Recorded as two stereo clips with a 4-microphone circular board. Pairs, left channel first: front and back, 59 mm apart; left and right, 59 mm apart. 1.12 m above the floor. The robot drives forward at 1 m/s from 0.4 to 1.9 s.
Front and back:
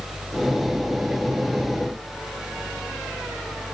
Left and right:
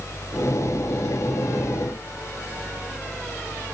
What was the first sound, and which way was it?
Only background noise.